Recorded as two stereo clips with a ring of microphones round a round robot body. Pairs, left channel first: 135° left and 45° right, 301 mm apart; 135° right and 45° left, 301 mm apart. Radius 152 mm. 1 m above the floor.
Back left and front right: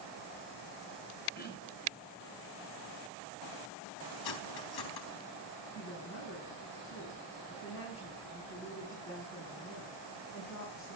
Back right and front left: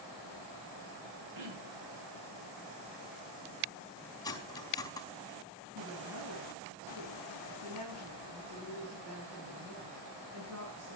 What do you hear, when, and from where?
1.4 s throat clearing: 75° left, 9 m
4.2 s cutlery clinking: 145° left, 4 m
5.8 s a woman speaking: 90° left, 9.5 m